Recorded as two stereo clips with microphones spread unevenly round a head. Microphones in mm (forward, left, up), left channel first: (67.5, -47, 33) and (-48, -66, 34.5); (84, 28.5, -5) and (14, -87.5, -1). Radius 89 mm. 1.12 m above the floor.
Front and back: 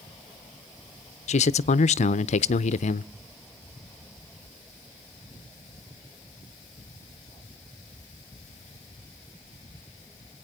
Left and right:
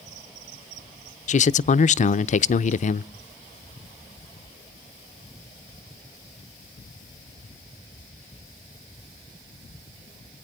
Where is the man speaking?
30° left, 0.6 m.